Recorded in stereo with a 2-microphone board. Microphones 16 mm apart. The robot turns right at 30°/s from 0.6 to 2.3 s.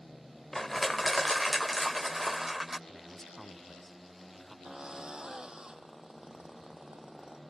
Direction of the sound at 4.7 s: 60° right (ahead or behind).